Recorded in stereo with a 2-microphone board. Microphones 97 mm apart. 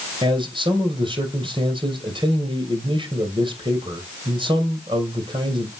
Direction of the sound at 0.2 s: 60° right (ahead or behind).